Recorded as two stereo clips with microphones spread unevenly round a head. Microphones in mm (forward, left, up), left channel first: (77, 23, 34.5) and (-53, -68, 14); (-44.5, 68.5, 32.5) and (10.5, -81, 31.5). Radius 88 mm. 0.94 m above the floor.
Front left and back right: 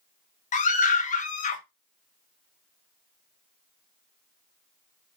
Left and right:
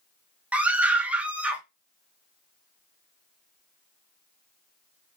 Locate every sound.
0.5 s a scream: 10° left, 1.0 m